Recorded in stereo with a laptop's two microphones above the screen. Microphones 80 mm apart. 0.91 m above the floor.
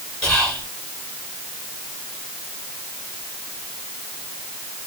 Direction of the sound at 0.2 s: 10° left (ahead or behind).